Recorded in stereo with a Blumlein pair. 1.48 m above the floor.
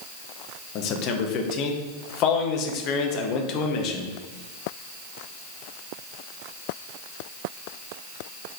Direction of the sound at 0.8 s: 40° left.